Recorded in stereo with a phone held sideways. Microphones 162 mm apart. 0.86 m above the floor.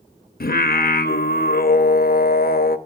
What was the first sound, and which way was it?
Singing, 70° left (ahead or behind).